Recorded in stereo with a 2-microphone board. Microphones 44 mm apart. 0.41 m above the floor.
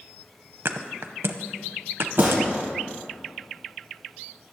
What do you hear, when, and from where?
0.7 s a thud: 70° right (ahead or behind), 0.7 m
2.2 s a gunshot: 45° right (ahead or behind), 4 m